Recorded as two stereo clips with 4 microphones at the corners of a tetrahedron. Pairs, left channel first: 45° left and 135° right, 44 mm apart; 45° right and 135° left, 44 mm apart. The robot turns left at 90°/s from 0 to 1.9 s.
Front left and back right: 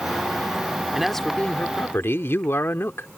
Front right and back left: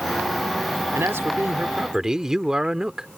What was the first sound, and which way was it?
A man speaking, 145° left.